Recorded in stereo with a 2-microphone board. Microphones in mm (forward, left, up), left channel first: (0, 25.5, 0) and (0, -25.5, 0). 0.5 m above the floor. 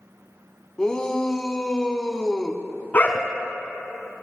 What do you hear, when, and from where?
0.8 s a shout: 15° left (ahead or behind), 1.0 m
2.9 s a dog barking: 35° left (ahead or behind), 1.6 m